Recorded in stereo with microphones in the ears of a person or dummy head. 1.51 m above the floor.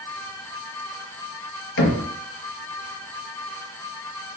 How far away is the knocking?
About 1.5 m.